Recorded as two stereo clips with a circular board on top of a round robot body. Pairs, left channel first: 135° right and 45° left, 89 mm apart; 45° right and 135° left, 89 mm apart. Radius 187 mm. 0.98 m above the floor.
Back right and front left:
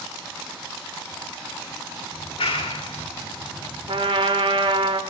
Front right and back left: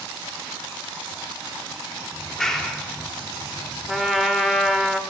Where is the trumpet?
45° left, 2 m.